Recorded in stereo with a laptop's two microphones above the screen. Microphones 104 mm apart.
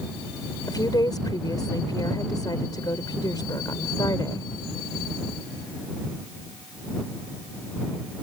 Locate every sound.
0.7 s a woman speaking: 40° left (ahead or behind)